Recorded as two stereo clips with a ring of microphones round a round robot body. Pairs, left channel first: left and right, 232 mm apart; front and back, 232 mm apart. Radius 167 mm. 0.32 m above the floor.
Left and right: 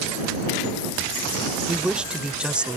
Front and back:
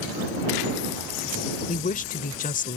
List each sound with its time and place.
1.7 s a woman speaking: 10° right